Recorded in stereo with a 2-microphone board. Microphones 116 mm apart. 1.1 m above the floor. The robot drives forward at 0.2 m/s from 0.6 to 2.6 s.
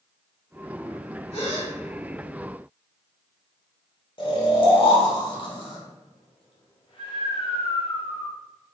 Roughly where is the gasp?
Left.